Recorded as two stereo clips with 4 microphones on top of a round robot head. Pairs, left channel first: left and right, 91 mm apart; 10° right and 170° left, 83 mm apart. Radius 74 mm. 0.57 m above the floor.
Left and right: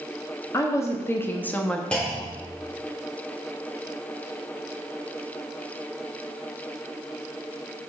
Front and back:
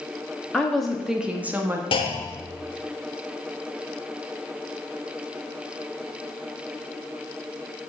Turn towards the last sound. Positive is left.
turn(degrees=10)